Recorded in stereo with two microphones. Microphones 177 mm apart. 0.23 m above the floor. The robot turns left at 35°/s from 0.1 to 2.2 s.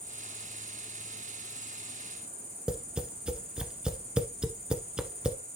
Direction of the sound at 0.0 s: 45° right.